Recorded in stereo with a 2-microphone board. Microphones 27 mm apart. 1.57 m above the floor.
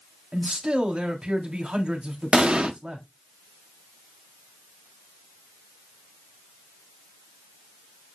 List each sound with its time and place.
0.3 s a man speaking: 35° right (ahead or behind), 3.5 m
2.3 s an explosion: 45° right (ahead or behind), 1.0 m